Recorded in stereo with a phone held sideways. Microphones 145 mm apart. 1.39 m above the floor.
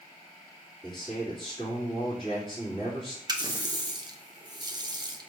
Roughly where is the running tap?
Right.